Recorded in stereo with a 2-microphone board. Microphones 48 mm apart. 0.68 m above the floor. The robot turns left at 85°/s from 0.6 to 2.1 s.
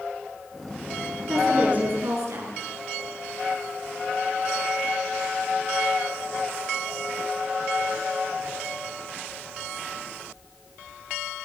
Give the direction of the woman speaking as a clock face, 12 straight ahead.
12 o'clock.